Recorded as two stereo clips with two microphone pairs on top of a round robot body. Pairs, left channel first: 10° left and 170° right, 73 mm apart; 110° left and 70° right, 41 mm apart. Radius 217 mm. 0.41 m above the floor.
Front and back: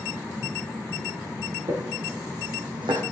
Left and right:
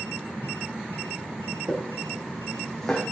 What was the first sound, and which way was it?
Footsteps, 135° right.